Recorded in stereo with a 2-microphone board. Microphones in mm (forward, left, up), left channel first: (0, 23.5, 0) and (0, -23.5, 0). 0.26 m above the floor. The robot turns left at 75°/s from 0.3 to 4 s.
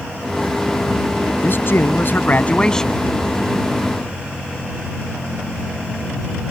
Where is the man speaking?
120° left; by 3.1 s 5° right.